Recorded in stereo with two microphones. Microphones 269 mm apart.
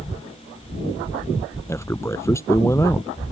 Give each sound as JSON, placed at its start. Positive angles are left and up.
{"t": 1.7, "sound": "a man speaking", "side_deg": 10}